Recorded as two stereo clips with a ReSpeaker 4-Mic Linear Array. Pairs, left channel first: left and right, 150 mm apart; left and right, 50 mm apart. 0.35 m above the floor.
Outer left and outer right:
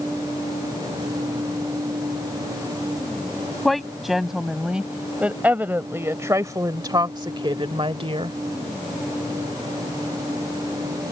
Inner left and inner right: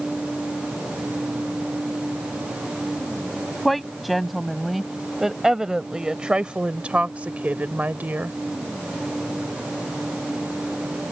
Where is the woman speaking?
Centre (ahead or behind); by 8.3 s 45° right (ahead or behind).